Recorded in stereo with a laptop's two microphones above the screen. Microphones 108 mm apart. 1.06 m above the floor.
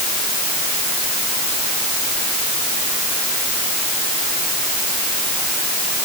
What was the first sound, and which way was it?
Only background noise.